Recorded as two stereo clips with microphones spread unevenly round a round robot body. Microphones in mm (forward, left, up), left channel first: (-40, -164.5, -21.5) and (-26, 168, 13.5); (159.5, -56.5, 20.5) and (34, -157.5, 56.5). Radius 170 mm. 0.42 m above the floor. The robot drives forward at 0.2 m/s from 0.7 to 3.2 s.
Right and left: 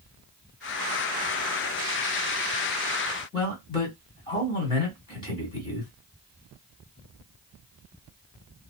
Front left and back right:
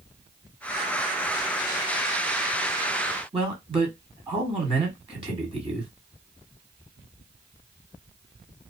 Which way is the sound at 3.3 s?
120° right.